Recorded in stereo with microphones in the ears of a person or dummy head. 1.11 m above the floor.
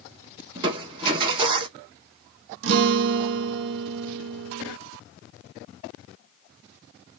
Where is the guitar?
75° right (ahead or behind), 0.8 m.